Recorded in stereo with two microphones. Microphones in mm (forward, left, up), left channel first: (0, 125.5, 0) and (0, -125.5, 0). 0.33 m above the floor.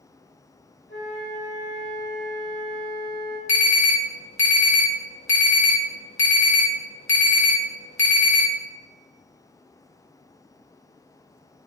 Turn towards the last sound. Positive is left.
turn(degrees=55)  # may be behind; listen again after turning